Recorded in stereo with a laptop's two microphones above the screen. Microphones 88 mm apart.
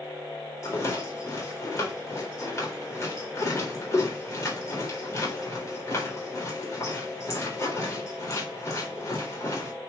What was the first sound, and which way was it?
A rattle, 35° left (ahead or behind).